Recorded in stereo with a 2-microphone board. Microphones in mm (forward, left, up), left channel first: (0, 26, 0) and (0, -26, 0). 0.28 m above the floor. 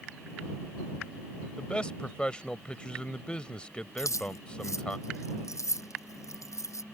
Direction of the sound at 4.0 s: 70° left (ahead or behind).